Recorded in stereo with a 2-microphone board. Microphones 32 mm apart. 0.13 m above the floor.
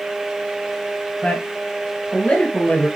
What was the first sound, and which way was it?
A man speaking, 50° left (ahead or behind).